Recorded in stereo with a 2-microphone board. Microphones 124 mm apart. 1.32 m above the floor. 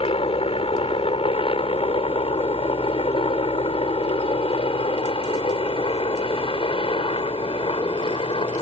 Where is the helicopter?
50° left (ahead or behind); by 8.6 s 45° left (ahead or behind).